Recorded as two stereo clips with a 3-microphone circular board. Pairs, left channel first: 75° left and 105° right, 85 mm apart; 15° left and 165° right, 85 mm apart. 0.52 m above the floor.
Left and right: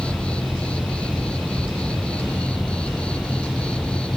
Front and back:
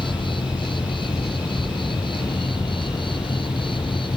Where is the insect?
5° right.